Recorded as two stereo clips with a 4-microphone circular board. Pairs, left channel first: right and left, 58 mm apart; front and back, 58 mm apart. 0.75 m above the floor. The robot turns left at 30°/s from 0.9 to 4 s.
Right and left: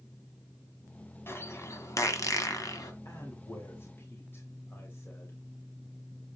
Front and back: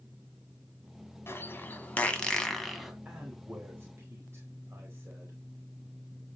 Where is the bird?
45° right, 1.8 m; by 2.9 s 95° right, 1.8 m.